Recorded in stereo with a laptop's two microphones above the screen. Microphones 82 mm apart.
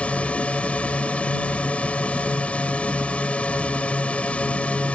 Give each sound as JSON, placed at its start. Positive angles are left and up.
{"t": 0.0, "sound": "a drone", "side_deg": 15}